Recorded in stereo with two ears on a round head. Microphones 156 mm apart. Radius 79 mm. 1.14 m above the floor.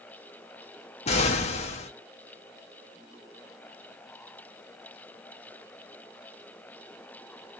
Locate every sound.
1.1 s an explosion: 35° left (ahead or behind), 0.5 m